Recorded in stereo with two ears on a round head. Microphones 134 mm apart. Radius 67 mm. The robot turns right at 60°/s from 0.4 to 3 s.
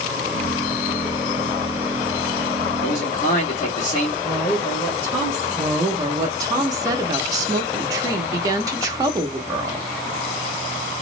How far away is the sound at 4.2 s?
About 1.2 m.